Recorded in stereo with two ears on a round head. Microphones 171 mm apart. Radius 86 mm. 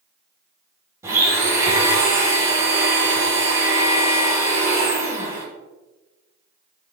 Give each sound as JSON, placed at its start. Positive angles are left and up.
{"t": 1.0, "sound": "a blender", "side_deg": -15, "distance_m": 1.8}